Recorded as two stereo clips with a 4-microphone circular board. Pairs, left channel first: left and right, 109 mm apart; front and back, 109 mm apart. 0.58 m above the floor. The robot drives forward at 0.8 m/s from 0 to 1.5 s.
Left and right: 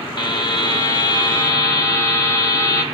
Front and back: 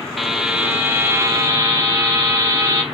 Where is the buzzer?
90° left, 1.6 m; by 2.8 s 135° left, 1.9 m.